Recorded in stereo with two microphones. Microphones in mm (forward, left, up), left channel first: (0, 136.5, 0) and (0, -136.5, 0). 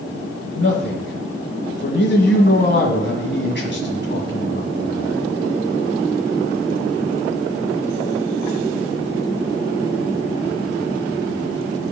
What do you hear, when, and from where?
0.6 s a man speaking: 40° left (ahead or behind), 1.6 m